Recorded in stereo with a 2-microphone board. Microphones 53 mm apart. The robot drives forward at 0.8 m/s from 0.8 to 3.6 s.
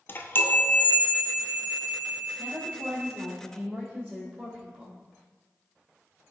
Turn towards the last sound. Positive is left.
turn(degrees=-15)  # may be behind; listen again after turning